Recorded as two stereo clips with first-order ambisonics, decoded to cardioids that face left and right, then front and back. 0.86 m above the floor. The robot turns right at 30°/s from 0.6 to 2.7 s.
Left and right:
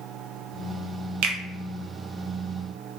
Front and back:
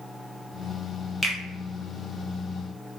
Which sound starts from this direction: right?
A finger snap, at 1.2 s.